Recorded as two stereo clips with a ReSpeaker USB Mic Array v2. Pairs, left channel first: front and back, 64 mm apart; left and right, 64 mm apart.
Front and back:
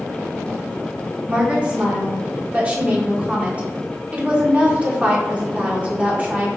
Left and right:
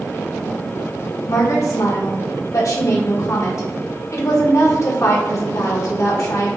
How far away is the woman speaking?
About 1.1 m.